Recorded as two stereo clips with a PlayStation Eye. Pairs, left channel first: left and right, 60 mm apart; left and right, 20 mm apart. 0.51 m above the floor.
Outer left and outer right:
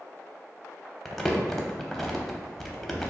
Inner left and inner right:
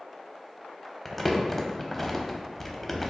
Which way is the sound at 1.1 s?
5° left (ahead or behind).